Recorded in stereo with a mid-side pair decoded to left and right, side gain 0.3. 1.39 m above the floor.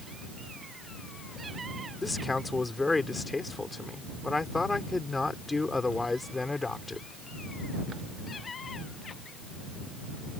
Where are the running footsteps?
I don't hear running footsteps.